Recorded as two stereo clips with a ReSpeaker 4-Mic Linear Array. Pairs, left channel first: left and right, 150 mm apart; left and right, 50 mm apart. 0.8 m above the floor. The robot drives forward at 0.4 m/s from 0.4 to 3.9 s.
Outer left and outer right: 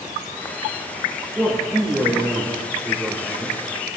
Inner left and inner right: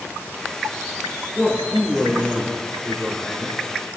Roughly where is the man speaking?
Centre.